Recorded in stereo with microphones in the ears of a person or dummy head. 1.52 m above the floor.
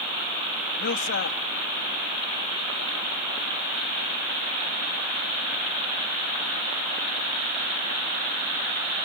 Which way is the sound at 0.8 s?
55° left (ahead or behind).